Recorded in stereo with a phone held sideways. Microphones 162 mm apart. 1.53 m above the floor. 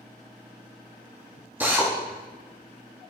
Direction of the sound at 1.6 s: 10° right (ahead or behind).